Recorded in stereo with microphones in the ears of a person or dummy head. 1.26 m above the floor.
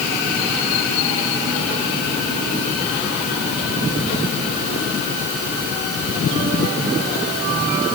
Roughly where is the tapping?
No tapping in this recording.